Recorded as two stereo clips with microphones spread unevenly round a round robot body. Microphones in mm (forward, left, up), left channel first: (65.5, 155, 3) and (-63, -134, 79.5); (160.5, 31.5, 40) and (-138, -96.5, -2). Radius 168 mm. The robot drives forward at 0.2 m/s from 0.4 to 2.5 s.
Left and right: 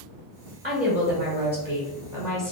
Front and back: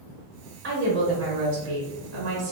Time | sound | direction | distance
0.6 | a woman speaking | straight behind | 1.0 m